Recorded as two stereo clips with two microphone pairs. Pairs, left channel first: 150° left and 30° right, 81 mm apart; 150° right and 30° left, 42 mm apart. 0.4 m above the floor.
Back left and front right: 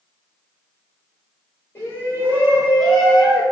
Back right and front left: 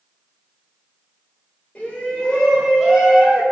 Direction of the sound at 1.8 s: Straight behind.